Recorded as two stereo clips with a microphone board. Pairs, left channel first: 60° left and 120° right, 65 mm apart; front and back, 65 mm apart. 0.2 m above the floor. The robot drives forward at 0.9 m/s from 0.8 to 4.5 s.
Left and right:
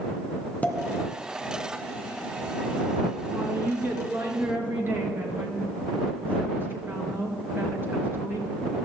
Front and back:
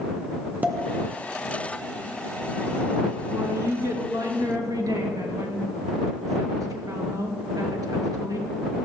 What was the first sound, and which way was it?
A pop, 120° left.